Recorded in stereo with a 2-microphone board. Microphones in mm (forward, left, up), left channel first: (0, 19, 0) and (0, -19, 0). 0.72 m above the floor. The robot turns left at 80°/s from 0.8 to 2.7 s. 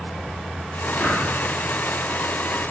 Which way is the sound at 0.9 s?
35° left (ahead or behind).